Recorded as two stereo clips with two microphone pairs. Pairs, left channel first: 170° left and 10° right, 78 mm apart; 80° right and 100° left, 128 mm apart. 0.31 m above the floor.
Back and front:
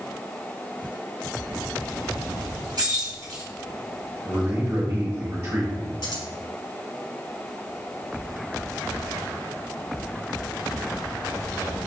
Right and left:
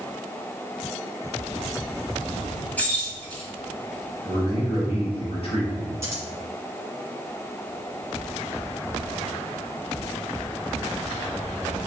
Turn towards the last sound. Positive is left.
turn(degrees=160)